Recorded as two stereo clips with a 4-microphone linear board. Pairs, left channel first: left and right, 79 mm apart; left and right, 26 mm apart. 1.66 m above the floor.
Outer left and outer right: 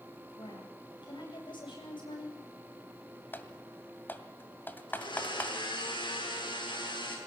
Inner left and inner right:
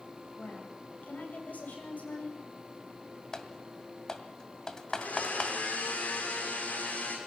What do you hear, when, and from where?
0.4 s a woman speaking: 75° left (ahead or behind), 8.5 m; by 2.4 s 80° left, 8.5 m
3.3 s typing on a keyboard: 25° left (ahead or behind), 2.0 m
4.9 s a blender: 85° left, 6 m